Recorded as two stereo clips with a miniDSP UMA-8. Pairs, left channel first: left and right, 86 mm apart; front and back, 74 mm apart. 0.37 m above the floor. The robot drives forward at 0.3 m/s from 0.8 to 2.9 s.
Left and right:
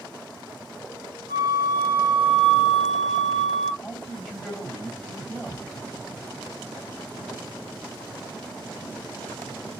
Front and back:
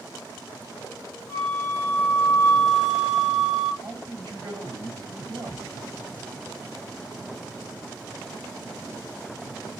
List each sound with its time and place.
1.3 s a flute: 50° right, 0.8 m; by 3.7 s 95° right, 0.6 m
3.8 s a man speaking: 175° left, 2 m